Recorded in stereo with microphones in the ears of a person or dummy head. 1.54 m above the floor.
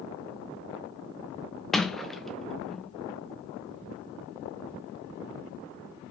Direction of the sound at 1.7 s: Centre (ahead or behind).